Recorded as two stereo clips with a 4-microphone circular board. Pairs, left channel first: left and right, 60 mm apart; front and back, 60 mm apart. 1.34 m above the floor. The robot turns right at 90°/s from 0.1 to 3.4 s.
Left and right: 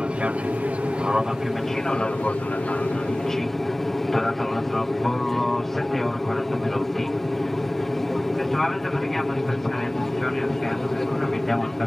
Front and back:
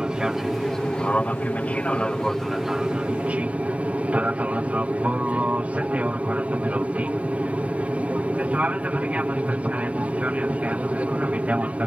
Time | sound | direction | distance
0.0 | an aircraft | 125° right | ?